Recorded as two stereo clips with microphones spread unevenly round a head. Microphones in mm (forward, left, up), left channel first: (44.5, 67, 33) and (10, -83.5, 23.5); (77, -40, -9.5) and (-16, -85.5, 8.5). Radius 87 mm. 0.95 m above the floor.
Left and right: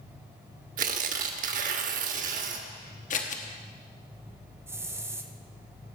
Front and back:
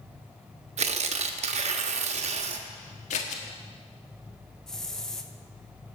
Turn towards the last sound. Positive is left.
turn(degrees=-45)